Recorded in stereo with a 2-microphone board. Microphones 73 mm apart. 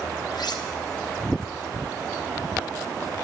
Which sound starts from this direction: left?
Cutlery clinking, at 0.3 s.